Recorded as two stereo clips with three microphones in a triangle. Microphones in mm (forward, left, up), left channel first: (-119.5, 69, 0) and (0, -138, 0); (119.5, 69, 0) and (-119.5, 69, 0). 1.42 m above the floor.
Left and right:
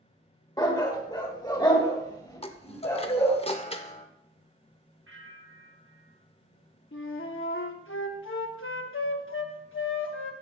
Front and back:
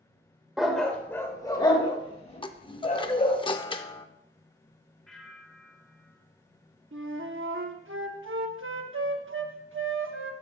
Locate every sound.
0.6 s a dog barking: 95° left, 1.1 m; by 3.4 s 50° left, 2 m
2.4 s a chime: 65° left, 0.6 m
5.1 s a bell: 90° right, 1.2 m
6.9 s a flute: 150° left, 0.8 m